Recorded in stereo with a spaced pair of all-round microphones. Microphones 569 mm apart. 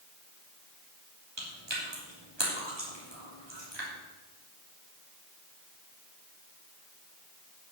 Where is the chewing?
45° right (ahead or behind), 3 m.